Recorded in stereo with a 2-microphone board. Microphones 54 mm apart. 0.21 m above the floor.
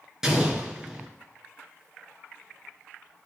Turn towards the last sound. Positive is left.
turn(degrees=-10)  # may be behind; listen again after turning